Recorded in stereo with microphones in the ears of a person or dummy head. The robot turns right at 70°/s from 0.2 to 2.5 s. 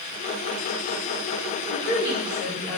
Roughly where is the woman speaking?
Left.